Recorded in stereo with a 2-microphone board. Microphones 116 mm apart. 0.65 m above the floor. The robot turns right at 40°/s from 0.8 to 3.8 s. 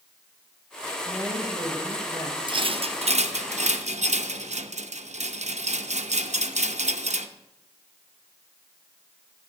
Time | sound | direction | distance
1.1 | a woman speaking | 20° left | 3 m
2.5 | a rattle | 45° right (ahead or behind) | 0.6 m